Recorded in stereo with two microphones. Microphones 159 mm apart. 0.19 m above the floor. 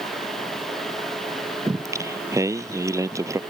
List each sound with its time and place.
1.7 s singing: 20° right (ahead or behind)